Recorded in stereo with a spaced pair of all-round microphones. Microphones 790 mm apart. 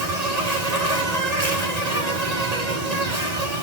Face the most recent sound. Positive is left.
turn(degrees=-50)  # may be behind; listen again after turning